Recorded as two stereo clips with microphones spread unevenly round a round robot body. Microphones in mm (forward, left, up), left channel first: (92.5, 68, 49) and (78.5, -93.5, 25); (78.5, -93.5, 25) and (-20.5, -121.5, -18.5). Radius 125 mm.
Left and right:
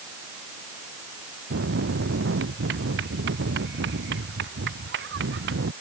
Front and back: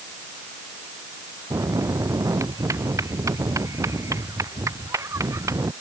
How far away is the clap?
I don't hear a clap.